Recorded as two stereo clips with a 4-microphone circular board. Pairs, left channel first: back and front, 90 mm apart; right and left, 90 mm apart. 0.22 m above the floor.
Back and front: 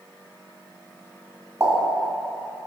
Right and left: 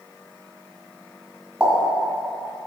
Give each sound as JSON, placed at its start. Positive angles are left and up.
{"t": 1.6, "sound": "a pop", "azimuth_deg": 20, "distance_m": 1.8}